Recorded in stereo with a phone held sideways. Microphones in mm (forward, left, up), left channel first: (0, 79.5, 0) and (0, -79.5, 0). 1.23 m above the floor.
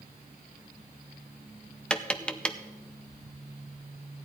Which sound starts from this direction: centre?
Tapping, at 1.9 s.